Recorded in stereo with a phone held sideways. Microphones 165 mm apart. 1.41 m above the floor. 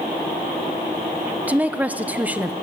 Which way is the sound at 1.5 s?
10° right (ahead or behind).